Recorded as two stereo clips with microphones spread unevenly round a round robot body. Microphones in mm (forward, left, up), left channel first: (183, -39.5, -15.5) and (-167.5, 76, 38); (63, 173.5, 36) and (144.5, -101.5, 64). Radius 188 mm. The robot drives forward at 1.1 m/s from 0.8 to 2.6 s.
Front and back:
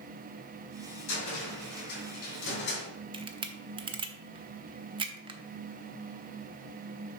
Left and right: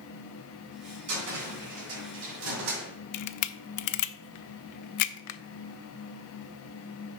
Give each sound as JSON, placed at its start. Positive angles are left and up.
{"t": 1.1, "sound": "a cupboard door", "azimuth_deg": -50, "distance_m": 3.0}
{"t": 3.1, "sound": "a camera shutter", "azimuth_deg": 80, "distance_m": 0.5}